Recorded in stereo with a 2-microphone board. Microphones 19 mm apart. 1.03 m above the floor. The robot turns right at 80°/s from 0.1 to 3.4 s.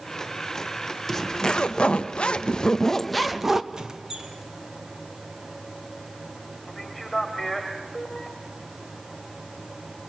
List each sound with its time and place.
1.1 s a zipper: 15° left, 1.0 m; by 3.6 s 160° right, 1.0 m
3.7 s a squeak: 35° right (ahead or behind), 1.3 m
6.7 s a man speaking: 10° left (ahead or behind), 2.5 m